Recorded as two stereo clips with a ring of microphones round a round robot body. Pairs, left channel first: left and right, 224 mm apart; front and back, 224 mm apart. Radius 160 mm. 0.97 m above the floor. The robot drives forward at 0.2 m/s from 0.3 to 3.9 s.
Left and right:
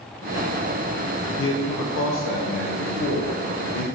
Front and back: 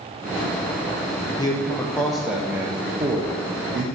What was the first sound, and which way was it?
A man speaking, 75° left.